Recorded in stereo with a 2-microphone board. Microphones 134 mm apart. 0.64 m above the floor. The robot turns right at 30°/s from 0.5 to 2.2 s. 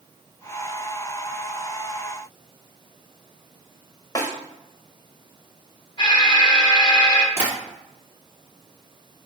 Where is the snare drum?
25° left (ahead or behind), 1.0 m.